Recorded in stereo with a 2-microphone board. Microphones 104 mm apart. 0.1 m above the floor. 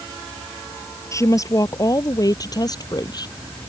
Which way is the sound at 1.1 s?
30° left (ahead or behind).